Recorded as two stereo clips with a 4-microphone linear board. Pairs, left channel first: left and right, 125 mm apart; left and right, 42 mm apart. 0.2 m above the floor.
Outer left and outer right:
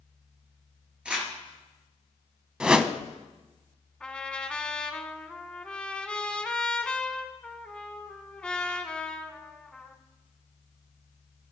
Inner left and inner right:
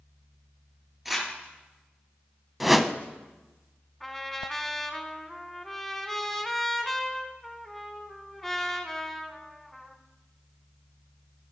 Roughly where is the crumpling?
Centre.